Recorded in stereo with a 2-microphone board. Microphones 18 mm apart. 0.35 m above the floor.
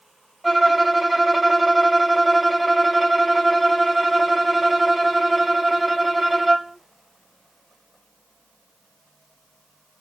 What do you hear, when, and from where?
0.4 s a violin: 5° right (ahead or behind), 1.9 m